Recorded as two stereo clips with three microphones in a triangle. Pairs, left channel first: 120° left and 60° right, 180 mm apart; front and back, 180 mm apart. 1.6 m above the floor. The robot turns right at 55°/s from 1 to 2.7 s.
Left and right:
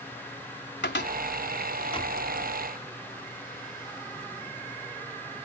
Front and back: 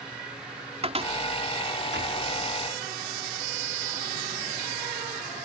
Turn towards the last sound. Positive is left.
turn(degrees=-140)